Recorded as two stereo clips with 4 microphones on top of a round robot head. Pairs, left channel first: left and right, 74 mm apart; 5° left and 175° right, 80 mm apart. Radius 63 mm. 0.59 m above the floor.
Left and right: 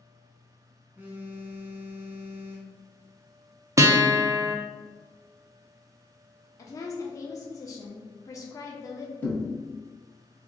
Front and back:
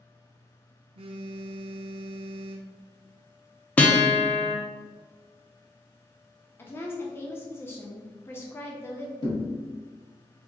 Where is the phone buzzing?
165° right, 0.5 m.